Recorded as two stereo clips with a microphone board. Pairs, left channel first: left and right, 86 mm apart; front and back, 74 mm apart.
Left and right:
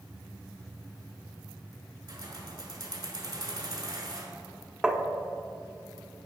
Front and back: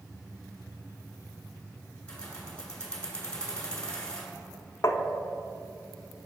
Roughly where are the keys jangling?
Right.